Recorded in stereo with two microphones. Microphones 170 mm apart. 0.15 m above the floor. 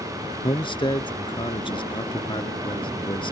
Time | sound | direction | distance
0.4 | a man speaking | 30° left (ahead or behind) | ?